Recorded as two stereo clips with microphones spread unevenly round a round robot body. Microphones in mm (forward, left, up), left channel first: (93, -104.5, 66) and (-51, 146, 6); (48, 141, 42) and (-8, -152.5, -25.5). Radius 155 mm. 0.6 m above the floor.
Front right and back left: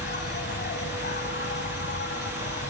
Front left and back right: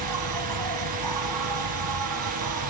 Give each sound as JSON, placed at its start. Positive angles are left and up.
{"t": 0.0, "sound": "an insect", "azimuth_deg": -120}